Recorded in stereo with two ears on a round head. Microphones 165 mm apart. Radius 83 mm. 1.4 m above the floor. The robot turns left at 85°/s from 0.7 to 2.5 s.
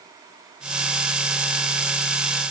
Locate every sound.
Only background noise.